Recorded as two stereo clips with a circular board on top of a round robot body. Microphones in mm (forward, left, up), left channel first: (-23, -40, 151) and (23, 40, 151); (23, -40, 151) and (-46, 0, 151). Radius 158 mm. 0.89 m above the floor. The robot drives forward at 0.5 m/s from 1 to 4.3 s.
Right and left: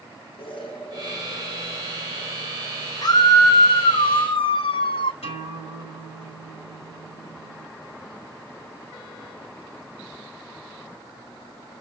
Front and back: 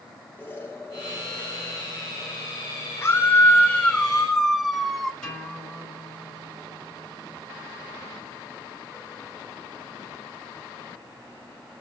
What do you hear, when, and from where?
0.4 s an explosion: 95° right, 4.5 m; by 2.9 s 105° right, 4.5 m
3.0 s a scream: 85° right, 1.2 m; by 5.1 s 120° right, 1.3 m
5.2 s a guitar: 115° right, 5 m